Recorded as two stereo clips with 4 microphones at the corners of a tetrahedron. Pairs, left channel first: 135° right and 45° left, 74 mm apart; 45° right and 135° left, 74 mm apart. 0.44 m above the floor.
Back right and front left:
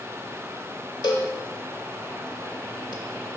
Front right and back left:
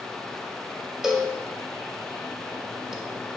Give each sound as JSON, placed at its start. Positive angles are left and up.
{"t": 1.0, "sound": "a cowbell", "azimuth_deg": -140, "distance_m": 0.6}